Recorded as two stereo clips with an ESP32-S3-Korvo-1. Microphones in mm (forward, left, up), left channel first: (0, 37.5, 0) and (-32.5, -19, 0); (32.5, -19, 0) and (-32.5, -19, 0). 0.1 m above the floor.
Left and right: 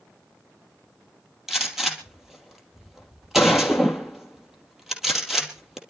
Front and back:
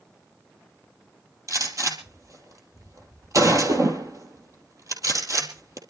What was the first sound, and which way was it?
A gunshot, 155° left.